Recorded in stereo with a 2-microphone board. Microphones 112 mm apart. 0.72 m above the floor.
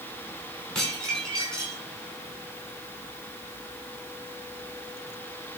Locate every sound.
0.8 s dishes clattering: 5° left (ahead or behind), 6 m